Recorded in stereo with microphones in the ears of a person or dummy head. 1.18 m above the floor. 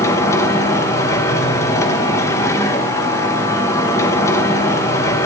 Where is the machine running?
15° left (ahead or behind), 1.2 m.